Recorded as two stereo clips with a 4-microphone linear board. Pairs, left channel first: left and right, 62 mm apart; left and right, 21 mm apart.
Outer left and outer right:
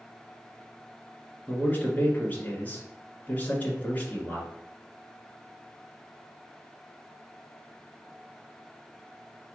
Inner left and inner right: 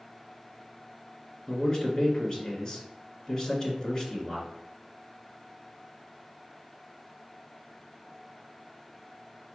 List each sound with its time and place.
1.5 s a man speaking: 25° left (ahead or behind), 1.6 m